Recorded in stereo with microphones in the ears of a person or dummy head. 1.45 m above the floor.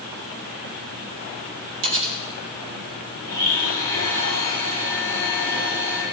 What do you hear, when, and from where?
1.8 s cutlery clinking: 60° right (ahead or behind), 4 m
3.2 s a blender: 80° right, 7 m